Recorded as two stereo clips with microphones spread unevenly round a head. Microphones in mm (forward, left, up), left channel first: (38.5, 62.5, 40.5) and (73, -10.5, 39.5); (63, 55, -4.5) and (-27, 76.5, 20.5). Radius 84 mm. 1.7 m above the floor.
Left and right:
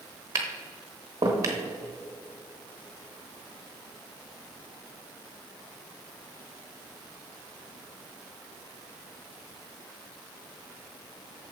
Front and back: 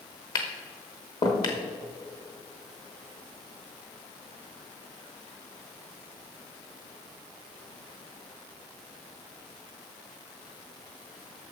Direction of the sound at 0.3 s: 60° right.